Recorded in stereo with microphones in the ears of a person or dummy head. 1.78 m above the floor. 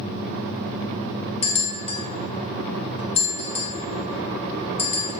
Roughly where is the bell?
Left.